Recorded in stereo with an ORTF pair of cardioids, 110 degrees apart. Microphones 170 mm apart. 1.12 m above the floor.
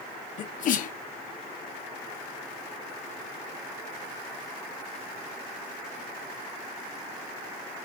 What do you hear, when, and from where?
0.4 s a sneeze: 50° left, 0.7 m